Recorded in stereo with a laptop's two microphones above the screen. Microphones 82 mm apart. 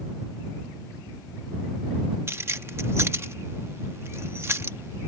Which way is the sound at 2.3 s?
30° right (ahead or behind).